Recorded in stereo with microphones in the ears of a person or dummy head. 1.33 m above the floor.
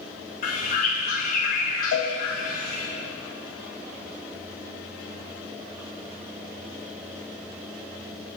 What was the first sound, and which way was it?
A bird, 40° left (ahead or behind).